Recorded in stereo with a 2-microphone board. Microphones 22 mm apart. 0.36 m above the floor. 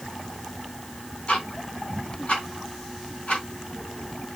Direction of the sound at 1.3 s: 70° left (ahead or behind).